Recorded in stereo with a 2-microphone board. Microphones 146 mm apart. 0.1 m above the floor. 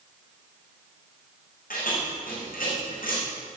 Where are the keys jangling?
80° left, 5.5 m.